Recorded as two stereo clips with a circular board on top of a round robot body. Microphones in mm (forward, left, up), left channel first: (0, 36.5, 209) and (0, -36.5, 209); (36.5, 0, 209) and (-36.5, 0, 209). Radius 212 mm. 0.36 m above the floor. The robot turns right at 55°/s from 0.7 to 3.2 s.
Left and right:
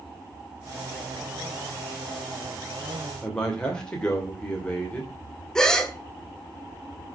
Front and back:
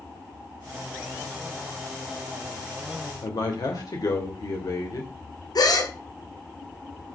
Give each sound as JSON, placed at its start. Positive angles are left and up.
{"t": 3.2, "sound": "a man speaking", "azimuth_deg": 15, "distance_m": 2.5}
{"t": 5.5, "sound": "a gasp", "azimuth_deg": 10, "distance_m": 2.5}